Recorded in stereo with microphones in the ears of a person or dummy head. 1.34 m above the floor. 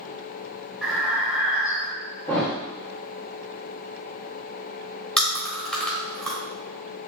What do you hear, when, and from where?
0.8 s breathing: centre (ahead or behind), 0.6 m
2.3 s a thud: 10° left (ahead or behind), 0.9 m
5.2 s chewing: 5° left (ahead or behind), 1.6 m